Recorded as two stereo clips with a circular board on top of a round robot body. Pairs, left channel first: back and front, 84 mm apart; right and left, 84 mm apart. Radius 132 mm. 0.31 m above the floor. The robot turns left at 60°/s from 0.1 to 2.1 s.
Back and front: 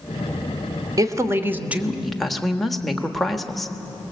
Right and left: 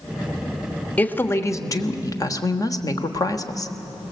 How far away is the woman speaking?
About 1.4 m.